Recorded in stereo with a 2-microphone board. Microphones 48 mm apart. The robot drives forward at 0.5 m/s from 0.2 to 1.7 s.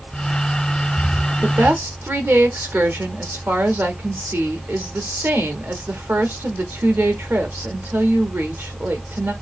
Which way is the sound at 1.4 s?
55° right (ahead or behind).